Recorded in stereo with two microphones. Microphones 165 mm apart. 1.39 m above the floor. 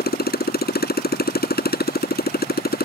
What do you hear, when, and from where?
0.0 s a motorcycle: 70° left (ahead or behind)